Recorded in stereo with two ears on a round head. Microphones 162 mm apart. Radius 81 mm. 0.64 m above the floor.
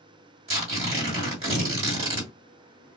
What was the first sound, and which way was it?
Tearing paper, 35° right (ahead or behind).